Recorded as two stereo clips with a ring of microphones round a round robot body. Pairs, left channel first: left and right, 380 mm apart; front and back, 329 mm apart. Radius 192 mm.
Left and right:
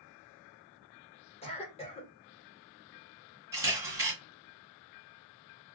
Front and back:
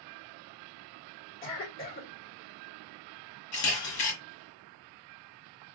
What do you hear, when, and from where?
1.4 s a cough: 25° left, 1.7 m
3.5 s a camera shutter: 5° right, 1.8 m